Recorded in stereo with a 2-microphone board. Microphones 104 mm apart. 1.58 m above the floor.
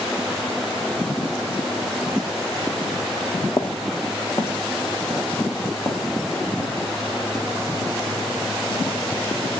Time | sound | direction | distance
3.5 | footsteps | 25° left (ahead or behind) | 1.8 m